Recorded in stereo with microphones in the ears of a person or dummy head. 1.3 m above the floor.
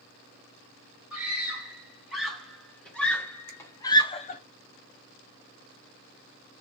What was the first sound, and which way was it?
A scream, 5° right (ahead or behind).